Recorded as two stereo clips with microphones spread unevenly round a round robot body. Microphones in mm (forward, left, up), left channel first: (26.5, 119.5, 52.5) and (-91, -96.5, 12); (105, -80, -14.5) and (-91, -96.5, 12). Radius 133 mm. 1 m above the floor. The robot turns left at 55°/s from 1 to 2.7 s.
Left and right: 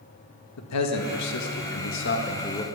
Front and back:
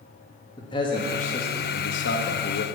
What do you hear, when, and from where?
0.6 s a man speaking: 70° left, 1.8 m; by 2.6 s 20° right, 1.8 m